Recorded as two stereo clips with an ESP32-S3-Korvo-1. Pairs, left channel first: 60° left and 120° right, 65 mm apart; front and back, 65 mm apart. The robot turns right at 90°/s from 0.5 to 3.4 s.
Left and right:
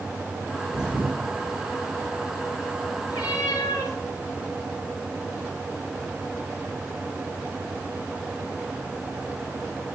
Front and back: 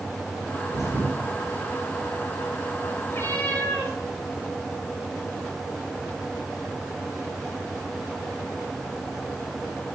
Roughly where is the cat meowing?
Ahead left.